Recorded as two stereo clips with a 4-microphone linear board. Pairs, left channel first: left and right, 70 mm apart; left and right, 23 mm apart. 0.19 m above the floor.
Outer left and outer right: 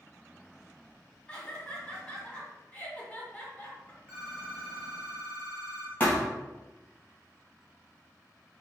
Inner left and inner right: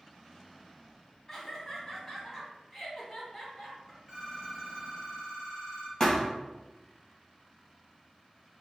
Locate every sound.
1.3 s laughter: 20° left (ahead or behind), 1.4 m
4.1 s a phone ringing: 15° right (ahead or behind), 1.7 m
6.0 s a thud: 25° left (ahead or behind), 1.6 m